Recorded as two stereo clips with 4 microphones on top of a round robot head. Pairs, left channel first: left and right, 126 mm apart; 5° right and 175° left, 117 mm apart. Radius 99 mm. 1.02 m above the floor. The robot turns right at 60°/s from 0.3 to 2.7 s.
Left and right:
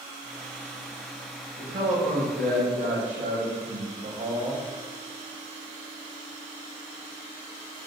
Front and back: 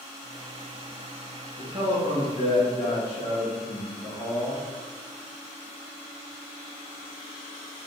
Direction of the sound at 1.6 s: 150° right.